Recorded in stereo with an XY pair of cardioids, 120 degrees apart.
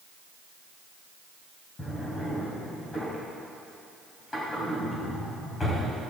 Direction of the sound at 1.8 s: 25° left.